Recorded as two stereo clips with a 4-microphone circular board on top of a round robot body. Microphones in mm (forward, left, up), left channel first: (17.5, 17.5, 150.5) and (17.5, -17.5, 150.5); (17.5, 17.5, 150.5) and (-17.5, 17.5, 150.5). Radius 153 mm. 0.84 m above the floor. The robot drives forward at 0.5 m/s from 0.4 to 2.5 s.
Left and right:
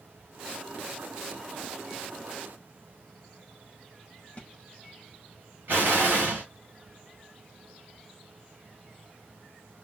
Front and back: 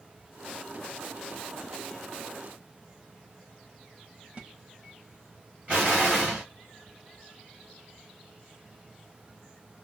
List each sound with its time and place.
4.4 s a splash: 135° left, 1.0 m
5.7 s an explosion: 125° right, 1.1 m